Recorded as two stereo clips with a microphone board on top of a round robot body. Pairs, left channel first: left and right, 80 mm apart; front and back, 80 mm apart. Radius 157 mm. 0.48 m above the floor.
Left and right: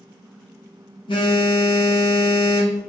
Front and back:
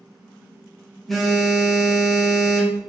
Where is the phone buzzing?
85° left, 0.7 m.